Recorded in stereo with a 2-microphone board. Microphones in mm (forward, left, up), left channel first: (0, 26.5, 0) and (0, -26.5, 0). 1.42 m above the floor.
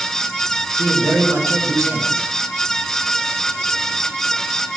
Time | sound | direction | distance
0.8 | a man speaking | 65° right (ahead or behind) | 2.5 m